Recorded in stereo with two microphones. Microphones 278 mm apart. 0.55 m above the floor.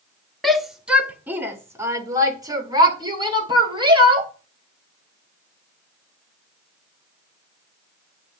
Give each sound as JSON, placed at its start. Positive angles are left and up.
{"t": 0.4, "sound": "a shout", "side_deg": 0, "distance_m": 1.1}